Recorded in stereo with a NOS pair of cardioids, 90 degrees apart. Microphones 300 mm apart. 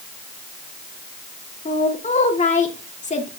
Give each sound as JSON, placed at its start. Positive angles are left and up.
{"t": 1.6, "sound": "a woman speaking", "azimuth_deg": 25, "distance_m": 2.5}